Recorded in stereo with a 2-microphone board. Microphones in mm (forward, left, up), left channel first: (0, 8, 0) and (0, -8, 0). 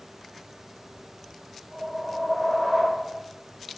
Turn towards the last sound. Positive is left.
turn(degrees=-5)  # may be behind; listen again after turning